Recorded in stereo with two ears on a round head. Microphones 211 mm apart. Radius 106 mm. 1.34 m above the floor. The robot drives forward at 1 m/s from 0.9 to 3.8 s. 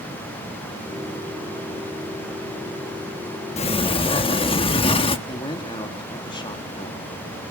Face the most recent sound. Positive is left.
turn(degrees=20)  # may be behind; listen again after turning